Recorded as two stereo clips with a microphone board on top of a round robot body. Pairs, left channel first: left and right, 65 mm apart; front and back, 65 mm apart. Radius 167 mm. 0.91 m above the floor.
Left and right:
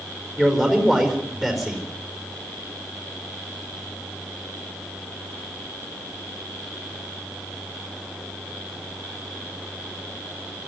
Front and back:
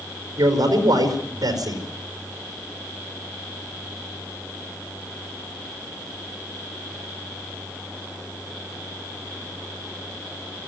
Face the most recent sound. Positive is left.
turn(degrees=180)